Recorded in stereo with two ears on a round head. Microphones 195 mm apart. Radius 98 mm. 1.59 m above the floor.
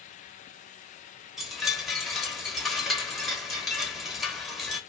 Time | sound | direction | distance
1.4 | a chime | centre (ahead or behind) | 0.9 m